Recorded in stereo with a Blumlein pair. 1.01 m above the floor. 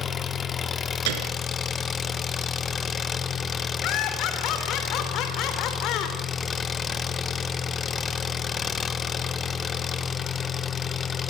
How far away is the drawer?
No drawer in this recording.